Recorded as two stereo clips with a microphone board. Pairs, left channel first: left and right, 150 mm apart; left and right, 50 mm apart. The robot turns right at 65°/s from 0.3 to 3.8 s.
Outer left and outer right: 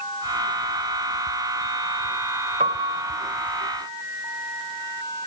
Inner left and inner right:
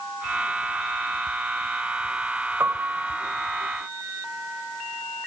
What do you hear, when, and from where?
2.6 s a piano: 60° right, 3 m; by 3.2 s 20° right, 3 m